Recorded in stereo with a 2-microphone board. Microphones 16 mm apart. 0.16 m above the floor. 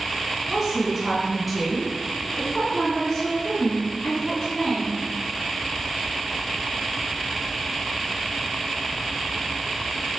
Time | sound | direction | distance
0.5 | a woman speaking | 20° right (ahead or behind) | 1.8 m